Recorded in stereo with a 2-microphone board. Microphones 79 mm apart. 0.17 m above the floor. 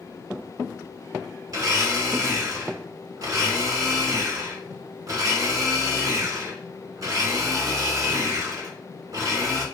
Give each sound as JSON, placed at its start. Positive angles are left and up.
{"t": 1.5, "sound": "a blender", "side_deg": -50, "distance_m": 1.0}